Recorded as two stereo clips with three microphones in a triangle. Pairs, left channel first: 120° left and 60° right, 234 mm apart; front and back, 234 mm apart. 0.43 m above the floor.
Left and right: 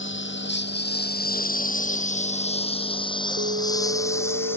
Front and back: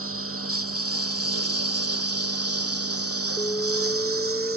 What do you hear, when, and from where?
0.0 s a lawn mower: 155° left; by 4.6 s 160° right
3.4 s an alarm: 75° right